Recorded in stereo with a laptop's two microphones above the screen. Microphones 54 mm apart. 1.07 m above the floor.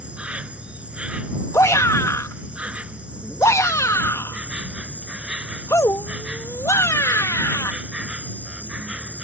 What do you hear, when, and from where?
0.0 s an insect: 20° right (ahead or behind)
1.5 s a shout: 65° left (ahead or behind)